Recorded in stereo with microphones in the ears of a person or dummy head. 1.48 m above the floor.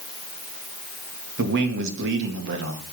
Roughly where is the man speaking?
Right.